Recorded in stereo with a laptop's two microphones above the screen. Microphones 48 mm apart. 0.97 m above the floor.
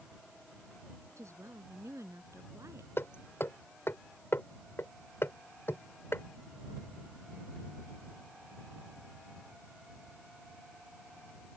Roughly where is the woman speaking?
Right.